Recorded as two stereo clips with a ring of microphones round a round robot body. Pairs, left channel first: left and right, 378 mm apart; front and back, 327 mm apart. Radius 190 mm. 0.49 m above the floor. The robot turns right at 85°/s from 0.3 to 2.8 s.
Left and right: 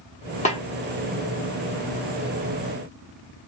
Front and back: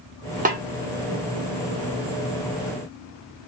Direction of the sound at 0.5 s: 140° left.